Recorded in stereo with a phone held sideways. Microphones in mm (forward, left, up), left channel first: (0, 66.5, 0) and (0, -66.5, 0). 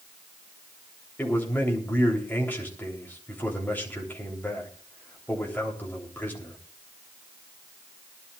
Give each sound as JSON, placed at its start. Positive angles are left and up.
{"t": 1.2, "sound": "a man speaking", "side_deg": 15, "distance_m": 3.0}